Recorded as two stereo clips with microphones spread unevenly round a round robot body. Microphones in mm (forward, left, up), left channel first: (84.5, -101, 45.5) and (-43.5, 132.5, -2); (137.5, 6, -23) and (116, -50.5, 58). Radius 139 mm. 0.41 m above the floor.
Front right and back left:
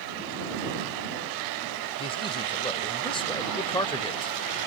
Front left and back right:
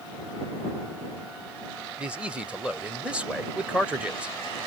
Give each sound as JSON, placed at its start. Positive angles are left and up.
{"t": 2.0, "sound": "a man speaking", "azimuth_deg": 15}